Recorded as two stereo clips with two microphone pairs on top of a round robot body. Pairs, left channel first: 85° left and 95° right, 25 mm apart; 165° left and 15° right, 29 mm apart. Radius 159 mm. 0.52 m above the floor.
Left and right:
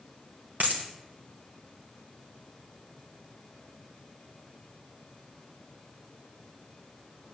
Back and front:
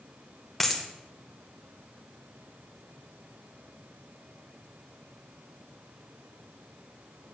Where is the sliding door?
I don't hear a sliding door.